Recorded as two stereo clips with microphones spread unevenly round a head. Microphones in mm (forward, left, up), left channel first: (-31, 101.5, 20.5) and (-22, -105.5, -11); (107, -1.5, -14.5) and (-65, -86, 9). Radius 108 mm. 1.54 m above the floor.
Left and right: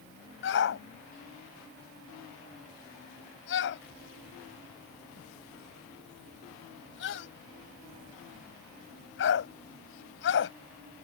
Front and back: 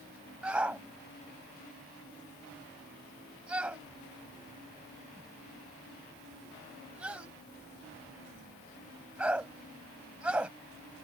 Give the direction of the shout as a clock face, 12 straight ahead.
8 o'clock.